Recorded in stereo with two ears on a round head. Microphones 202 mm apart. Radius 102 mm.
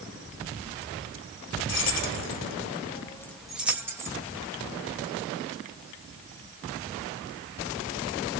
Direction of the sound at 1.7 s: 50° left (ahead or behind).